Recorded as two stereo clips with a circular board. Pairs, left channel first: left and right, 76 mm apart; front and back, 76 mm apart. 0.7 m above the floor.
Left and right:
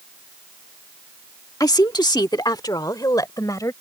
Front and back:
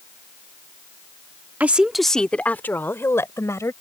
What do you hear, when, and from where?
1.6 s a woman speaking: 115° left; by 3.7 s 50° left